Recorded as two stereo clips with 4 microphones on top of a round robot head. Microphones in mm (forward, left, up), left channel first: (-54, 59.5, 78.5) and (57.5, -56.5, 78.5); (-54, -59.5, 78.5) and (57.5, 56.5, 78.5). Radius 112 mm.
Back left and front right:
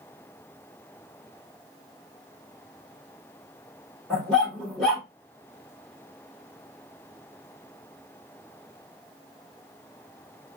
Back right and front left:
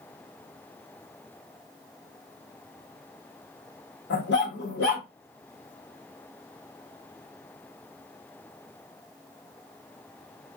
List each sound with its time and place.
4.1 s a dog barking: 135° right, 1.5 m